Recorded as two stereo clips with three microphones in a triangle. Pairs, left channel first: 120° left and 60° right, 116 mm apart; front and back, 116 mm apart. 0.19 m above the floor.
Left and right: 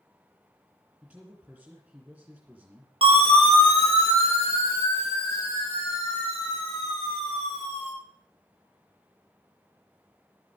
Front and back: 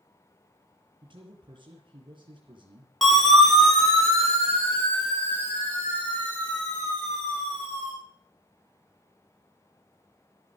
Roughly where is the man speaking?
Behind right.